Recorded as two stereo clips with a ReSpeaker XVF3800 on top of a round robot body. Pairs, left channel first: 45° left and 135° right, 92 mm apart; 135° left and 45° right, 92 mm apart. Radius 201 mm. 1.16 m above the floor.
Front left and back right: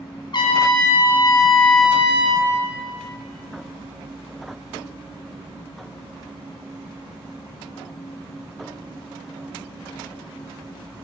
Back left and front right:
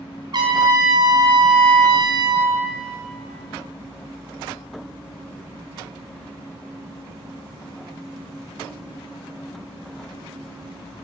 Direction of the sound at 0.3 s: Straight ahead.